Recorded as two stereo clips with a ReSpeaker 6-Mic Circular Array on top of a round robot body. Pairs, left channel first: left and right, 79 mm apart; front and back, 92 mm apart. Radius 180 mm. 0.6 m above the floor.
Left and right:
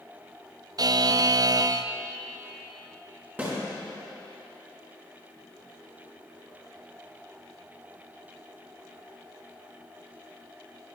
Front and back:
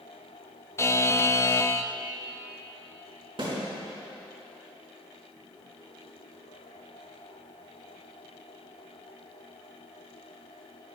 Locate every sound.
0.8 s a buzzer: 60° right, 0.5 m
3.4 s a snare drum: 155° right, 3.5 m